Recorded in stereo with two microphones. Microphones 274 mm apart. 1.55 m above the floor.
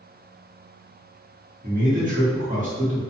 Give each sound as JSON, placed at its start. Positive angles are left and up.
{"t": 1.6, "sound": "a man speaking", "side_deg": -30, "distance_m": 1.2}